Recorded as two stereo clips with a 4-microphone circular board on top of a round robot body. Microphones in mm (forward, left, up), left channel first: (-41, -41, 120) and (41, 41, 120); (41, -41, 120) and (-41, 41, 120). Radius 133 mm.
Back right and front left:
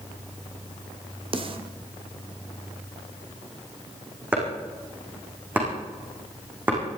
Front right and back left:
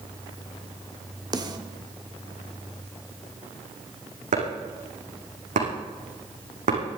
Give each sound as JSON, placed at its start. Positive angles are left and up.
{"t": 1.3, "sound": "a snare drum", "azimuth_deg": 85, "distance_m": 1.9}
{"t": 4.3, "sound": "chopping", "azimuth_deg": 120, "distance_m": 6.0}